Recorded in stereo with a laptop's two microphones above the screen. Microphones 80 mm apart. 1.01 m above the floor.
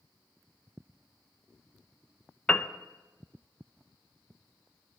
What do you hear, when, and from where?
2.5 s a piano: 15° left (ahead or behind), 0.5 m